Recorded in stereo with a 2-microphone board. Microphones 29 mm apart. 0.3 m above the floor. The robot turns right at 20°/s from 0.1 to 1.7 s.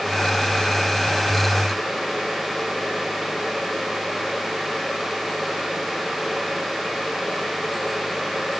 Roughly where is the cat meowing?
No cat meowing in this recording.